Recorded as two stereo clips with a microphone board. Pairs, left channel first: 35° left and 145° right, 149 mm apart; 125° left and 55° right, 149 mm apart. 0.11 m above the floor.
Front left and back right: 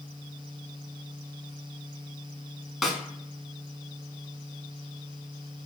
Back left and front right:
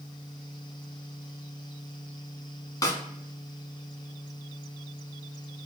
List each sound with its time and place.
2.8 s a snare drum: 130° left, 0.6 m